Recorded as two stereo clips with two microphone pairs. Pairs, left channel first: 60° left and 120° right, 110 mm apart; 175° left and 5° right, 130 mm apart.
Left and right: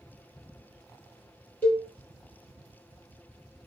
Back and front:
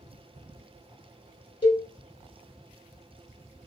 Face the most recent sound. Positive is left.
turn(degrees=125)